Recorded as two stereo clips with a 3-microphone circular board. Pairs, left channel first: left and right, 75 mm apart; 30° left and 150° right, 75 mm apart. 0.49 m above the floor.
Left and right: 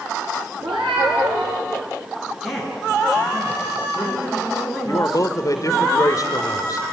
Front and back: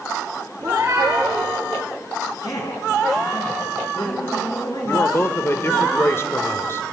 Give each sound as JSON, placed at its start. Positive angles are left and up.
{"t": 0.6, "sound": "a cat meowing", "azimuth_deg": -95, "distance_m": 7.0}
{"t": 2.4, "sound": "a man speaking", "azimuth_deg": -5, "distance_m": 9.0}
{"t": 4.8, "sound": "a man speaking", "azimuth_deg": 75, "distance_m": 1.6}